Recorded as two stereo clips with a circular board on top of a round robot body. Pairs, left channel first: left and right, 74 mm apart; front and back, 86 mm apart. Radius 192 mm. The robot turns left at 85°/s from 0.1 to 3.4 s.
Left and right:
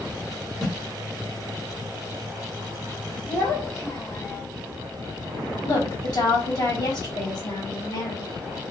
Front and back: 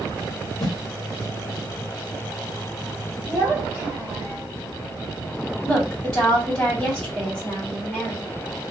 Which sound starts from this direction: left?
A woman speaking, at 5.6 s.